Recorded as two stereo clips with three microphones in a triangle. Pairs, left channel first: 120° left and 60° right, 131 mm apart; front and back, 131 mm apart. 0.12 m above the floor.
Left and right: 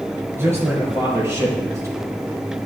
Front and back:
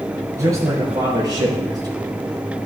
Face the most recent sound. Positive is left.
turn(degrees=-125)